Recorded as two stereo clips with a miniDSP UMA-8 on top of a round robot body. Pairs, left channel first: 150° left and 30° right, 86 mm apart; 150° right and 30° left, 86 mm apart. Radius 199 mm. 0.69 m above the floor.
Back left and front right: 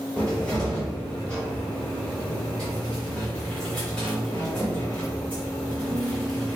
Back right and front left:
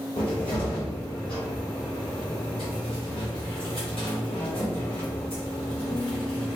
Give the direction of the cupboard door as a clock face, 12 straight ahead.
4 o'clock.